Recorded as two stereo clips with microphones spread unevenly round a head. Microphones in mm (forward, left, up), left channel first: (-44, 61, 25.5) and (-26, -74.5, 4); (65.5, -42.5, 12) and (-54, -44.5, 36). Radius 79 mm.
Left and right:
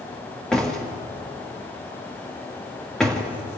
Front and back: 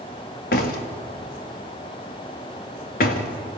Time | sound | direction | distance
0.5 | a door slam | 15° left | 2 m